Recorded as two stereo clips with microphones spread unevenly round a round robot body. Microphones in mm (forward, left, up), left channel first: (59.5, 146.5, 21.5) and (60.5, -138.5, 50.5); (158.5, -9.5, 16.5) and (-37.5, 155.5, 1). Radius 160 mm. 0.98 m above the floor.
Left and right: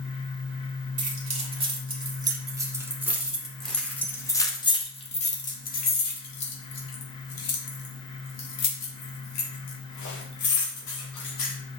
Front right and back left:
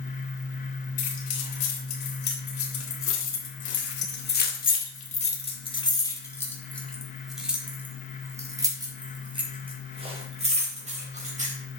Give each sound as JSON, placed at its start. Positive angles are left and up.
{"t": 1.0, "sound": "keys jangling", "azimuth_deg": -25, "distance_m": 3.0}